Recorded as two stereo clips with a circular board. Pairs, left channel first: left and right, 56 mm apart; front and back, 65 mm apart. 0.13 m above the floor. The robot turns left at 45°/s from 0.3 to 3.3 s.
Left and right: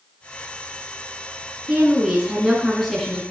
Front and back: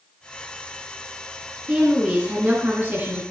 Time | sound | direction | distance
1.7 | a woman speaking | 125° right | 1.7 m